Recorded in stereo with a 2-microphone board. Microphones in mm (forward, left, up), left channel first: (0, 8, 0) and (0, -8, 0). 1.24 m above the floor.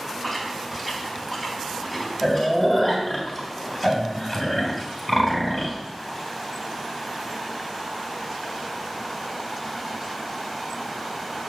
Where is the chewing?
20° left (ahead or behind), 3 m.